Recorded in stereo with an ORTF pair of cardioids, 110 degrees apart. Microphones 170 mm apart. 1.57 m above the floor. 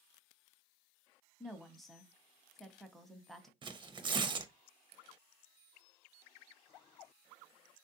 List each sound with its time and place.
1.4 s a woman speaking: straight ahead, 0.7 m
3.6 s tearing paper: 30° right, 0.6 m